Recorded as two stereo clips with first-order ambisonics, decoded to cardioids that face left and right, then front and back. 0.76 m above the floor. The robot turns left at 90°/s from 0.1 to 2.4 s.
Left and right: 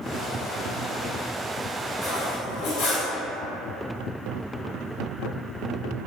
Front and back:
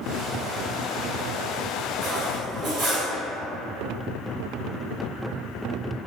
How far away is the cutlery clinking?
About 0.8 m.